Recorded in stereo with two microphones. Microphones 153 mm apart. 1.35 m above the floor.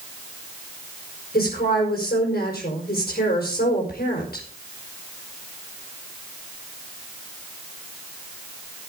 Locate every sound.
1.3 s a woman speaking: 80° left, 5 m